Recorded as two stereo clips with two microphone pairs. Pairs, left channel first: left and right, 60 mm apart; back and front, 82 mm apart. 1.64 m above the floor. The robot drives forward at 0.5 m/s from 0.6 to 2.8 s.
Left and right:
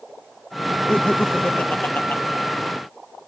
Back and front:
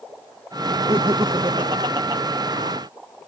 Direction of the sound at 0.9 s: 25° left.